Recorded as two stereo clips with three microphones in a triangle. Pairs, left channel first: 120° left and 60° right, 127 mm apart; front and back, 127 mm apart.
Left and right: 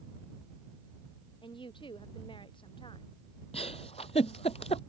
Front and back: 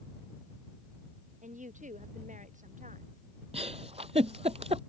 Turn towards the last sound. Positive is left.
turn(degrees=150)